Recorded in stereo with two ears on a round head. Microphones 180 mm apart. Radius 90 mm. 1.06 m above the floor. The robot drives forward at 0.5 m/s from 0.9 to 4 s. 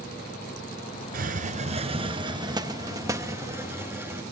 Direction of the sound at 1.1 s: 45° right (ahead or behind).